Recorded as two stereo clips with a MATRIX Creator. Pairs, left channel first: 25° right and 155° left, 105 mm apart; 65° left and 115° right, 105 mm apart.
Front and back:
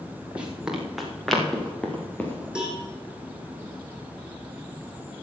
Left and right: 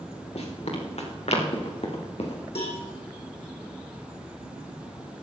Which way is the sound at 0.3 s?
80° left.